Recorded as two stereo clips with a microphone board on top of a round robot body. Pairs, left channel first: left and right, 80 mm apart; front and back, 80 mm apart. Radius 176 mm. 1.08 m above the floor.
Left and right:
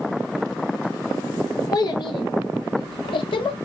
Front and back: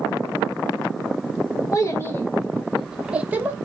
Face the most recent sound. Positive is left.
turn(degrees=115)